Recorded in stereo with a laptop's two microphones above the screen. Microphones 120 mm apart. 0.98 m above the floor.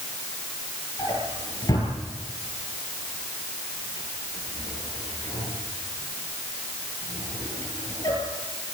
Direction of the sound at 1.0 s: 30° left (ahead or behind).